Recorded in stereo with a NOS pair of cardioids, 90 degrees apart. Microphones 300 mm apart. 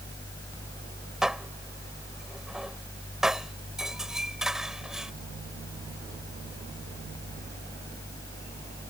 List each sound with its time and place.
0.0 s a fan: 10° left
1.2 s dishes clattering: straight ahead